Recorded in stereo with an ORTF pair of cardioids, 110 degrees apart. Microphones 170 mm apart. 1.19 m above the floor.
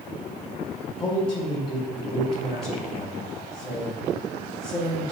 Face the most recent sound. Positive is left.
turn(degrees=35)